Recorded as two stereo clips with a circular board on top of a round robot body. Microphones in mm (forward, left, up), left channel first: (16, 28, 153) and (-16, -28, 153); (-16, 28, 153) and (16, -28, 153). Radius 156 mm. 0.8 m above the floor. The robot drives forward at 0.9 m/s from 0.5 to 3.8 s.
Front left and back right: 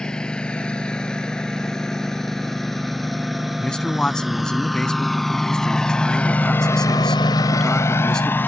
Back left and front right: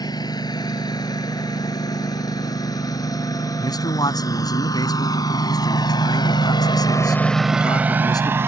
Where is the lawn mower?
140° left; by 8.5 s 5° right.